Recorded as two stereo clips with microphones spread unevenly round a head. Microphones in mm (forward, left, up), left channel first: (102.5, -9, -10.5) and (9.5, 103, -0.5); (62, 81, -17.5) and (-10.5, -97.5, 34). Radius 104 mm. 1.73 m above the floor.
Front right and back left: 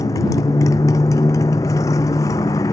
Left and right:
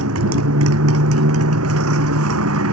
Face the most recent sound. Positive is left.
turn(degrees=-125)